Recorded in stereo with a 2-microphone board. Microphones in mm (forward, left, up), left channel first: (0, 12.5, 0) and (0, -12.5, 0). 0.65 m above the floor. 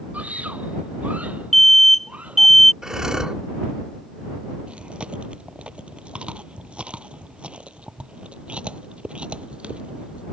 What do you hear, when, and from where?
0.1 s a scream: 75° right (ahead or behind); by 2.5 s 70° right (ahead or behind)
1.5 s an alarm: 15° left (ahead or behind)
2.8 s breathing: 25° right (ahead or behind)
4.7 s chewing: 45° right (ahead or behind)